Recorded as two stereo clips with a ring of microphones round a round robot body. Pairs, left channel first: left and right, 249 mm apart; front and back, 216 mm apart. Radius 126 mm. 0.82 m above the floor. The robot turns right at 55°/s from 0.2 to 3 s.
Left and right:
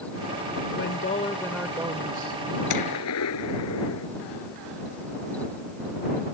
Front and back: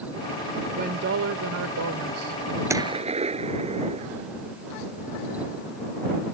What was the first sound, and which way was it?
A woman speaking, 130° left.